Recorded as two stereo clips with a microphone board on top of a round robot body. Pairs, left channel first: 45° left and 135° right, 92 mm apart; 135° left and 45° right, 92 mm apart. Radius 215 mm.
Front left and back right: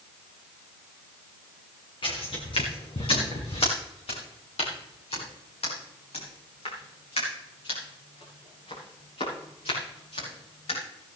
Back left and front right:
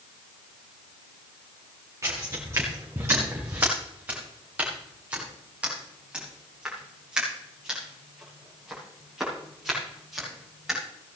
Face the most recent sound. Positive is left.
turn(degrees=40)